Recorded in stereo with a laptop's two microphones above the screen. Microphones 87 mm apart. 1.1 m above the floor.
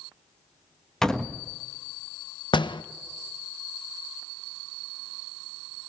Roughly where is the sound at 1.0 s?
Centre.